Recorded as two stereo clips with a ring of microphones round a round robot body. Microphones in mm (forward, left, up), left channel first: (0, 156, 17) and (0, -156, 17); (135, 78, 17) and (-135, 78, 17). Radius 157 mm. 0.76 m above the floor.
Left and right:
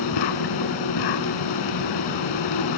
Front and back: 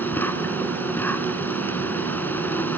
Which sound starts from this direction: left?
An insect, at 0.0 s.